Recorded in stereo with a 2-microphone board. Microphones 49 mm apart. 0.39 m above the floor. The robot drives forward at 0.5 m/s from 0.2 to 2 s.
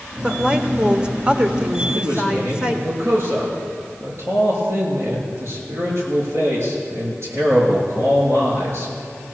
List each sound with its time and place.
0.2 s a woman speaking: 20° right (ahead or behind), 1.0 m
1.9 s a man speaking: 60° right (ahead or behind), 5.5 m